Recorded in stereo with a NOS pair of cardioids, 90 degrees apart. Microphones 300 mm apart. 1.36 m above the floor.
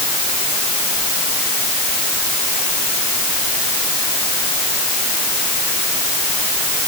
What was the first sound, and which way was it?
Only background noise.